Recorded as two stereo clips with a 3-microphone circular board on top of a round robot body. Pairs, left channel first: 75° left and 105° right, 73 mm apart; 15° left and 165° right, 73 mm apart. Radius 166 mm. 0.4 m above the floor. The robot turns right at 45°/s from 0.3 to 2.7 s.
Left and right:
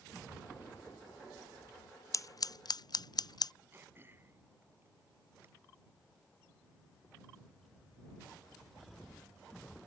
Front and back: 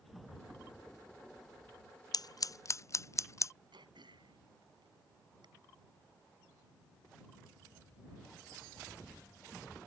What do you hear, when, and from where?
2.1 s scissors: 35° left; by 3.5 s 60° left
3.7 s throat clearing: 165° right